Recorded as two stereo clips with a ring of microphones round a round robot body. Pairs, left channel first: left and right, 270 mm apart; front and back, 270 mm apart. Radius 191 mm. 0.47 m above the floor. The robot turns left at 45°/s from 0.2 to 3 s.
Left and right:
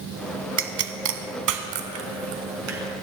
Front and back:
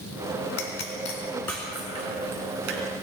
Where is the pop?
45° right, 1.0 m; by 2.8 s 145° right, 1.0 m.